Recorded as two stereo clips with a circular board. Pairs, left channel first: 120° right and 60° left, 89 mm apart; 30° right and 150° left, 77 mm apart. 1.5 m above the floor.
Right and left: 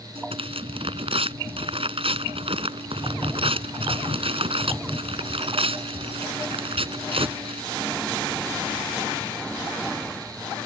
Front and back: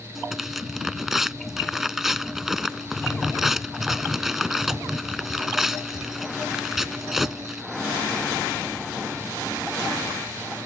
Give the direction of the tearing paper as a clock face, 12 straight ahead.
10 o'clock.